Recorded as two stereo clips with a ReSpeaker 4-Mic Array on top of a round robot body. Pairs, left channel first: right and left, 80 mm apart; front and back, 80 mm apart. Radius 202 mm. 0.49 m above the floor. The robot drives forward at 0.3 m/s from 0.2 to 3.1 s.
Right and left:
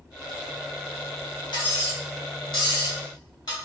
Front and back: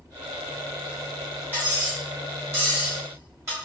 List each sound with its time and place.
1.5 s cutlery clinking: 115° right, 2 m; by 3.5 s 125° right, 2.5 m